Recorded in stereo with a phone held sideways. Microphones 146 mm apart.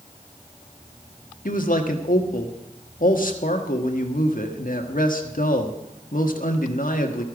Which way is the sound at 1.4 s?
70° left (ahead or behind).